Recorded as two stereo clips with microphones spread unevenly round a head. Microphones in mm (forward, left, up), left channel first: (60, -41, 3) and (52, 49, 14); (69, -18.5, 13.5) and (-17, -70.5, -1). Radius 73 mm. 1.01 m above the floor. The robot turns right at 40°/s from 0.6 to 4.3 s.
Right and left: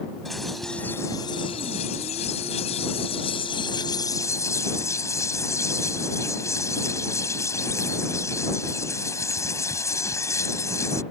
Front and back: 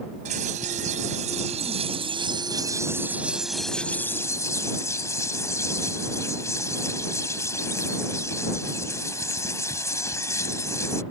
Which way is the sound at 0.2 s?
175° right.